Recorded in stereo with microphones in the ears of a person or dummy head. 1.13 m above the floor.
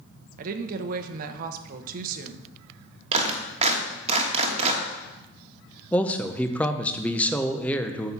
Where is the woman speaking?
50° right (ahead or behind), 1.0 m.